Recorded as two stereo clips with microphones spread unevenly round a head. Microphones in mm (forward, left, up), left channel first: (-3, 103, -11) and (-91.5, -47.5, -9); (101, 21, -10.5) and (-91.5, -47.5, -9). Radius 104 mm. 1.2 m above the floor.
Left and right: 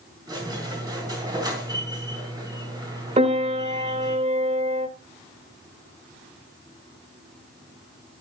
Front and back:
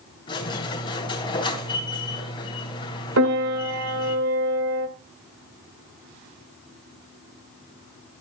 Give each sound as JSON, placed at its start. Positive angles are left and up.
{"t": 0.3, "sound": "a squeak", "azimuth_deg": -50, "distance_m": 3.0}
{"t": 3.2, "sound": "a piano", "azimuth_deg": -170, "distance_m": 1.8}